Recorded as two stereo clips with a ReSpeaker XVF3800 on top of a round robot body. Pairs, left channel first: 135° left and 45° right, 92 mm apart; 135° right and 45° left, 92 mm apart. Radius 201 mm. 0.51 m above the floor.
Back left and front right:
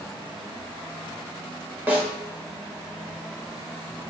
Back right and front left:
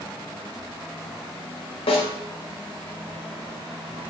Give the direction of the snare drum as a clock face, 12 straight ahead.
4 o'clock.